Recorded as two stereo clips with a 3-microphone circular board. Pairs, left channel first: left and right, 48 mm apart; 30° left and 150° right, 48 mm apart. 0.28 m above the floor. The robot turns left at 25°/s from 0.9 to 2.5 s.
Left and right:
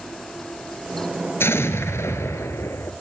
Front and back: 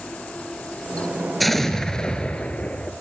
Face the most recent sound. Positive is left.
turn(degrees=95)